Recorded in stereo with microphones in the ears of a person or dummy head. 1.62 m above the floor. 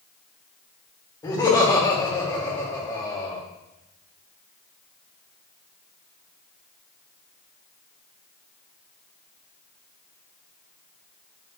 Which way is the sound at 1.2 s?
20° left (ahead or behind).